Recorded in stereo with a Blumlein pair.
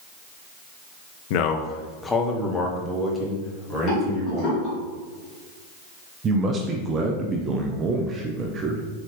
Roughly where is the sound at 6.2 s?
Ahead right.